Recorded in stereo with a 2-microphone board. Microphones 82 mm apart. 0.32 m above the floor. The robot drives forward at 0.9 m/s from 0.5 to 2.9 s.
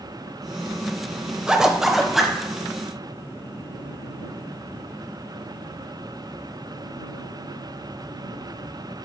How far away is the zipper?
About 0.5 m.